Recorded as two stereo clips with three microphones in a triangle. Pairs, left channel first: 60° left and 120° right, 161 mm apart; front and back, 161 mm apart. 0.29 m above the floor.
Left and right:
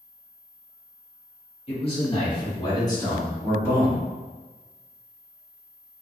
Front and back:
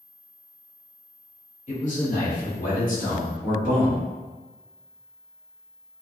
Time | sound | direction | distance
1.7 | a man speaking | 20° left | 1.7 m